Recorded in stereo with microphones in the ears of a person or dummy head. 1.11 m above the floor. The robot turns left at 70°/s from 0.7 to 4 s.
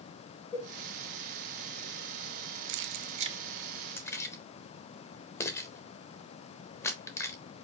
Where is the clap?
I don't hear a clap.